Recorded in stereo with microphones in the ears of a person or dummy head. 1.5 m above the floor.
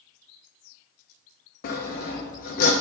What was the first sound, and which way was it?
Sawing, 40° left (ahead or behind).